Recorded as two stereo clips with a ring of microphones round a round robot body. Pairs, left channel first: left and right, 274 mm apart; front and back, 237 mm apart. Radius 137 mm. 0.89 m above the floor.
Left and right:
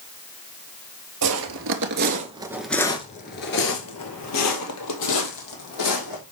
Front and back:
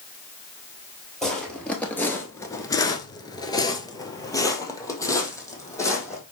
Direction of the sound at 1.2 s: 90° right.